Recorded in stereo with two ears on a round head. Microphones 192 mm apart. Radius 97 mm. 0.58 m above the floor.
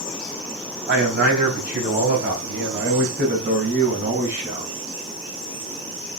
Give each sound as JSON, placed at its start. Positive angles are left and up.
{"t": 0.9, "sound": "a man speaking", "side_deg": -50, "distance_m": 4.0}